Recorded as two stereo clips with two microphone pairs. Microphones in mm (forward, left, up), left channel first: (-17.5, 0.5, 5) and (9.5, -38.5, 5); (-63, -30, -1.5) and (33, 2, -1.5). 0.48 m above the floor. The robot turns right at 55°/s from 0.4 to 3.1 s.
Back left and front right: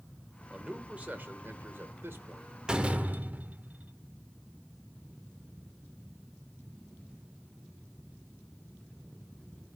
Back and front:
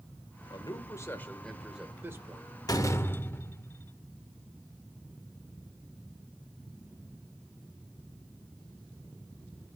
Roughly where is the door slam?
Behind right.